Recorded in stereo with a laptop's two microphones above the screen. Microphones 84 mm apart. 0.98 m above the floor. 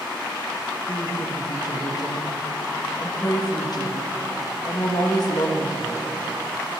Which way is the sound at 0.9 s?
50° left (ahead or behind).